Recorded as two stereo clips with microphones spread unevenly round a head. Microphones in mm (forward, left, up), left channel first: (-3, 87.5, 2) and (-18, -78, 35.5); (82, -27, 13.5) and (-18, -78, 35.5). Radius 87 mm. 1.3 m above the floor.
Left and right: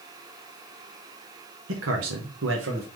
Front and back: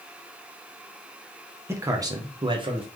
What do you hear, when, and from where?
1.7 s a man speaking: 85° right, 0.9 m; by 2.9 s 110° right, 1.4 m